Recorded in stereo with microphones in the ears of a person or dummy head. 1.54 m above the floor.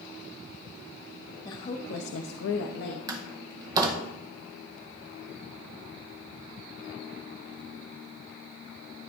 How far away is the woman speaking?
About 0.9 m.